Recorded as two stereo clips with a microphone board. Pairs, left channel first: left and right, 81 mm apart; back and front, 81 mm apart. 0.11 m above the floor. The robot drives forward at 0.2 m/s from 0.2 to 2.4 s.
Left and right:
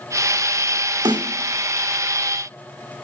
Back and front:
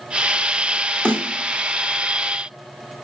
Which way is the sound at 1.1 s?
105° right.